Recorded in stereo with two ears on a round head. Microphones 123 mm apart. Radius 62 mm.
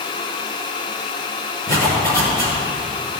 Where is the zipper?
25° left (ahead or behind), 5.5 m.